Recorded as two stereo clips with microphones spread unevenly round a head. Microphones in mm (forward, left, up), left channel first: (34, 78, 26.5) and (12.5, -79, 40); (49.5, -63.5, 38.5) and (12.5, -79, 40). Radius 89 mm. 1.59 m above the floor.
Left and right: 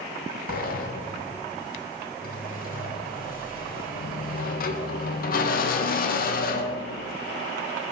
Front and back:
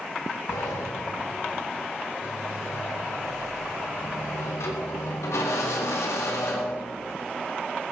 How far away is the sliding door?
About 1.5 m.